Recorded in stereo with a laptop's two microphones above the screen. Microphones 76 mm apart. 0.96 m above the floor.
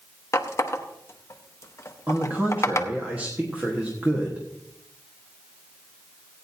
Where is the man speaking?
25° right (ahead or behind), 1.3 m.